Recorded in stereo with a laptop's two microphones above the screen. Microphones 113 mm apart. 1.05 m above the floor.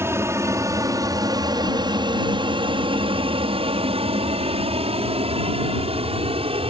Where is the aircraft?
25° right (ahead or behind); by 6.7 s 55° right (ahead or behind).